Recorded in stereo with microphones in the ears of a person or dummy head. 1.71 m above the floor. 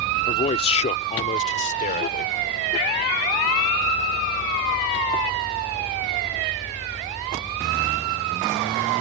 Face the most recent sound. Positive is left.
turn(degrees=40)  # may be behind; listen again after turning